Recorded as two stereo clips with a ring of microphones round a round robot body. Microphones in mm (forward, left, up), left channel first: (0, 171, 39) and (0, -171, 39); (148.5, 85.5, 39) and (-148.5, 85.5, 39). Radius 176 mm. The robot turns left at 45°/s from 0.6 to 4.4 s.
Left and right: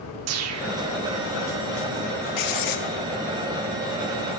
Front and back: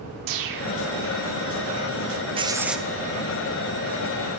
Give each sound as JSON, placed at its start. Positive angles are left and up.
{"t": 0.3, "sound": "a whoosh", "azimuth_deg": -140, "distance_m": 0.9}
{"t": 2.4, "sound": "writing", "azimuth_deg": 110, "distance_m": 1.0}